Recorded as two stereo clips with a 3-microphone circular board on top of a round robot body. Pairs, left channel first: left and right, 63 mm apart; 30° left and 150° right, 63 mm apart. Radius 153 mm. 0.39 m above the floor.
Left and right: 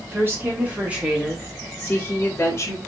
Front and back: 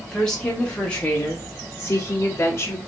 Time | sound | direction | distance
0.1 | a woman speaking | 50° right | 1.7 m